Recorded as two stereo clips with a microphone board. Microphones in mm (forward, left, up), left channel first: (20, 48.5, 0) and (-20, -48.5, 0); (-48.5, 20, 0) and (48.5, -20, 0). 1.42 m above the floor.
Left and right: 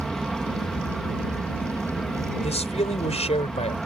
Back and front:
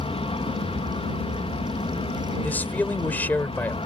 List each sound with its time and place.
0.0 s an aircraft: 155° left
2.4 s a man speaking: 85° left